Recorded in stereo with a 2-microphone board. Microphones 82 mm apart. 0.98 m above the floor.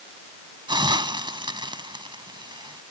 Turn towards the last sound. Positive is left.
turn(degrees=-65)  # may be behind; listen again after turning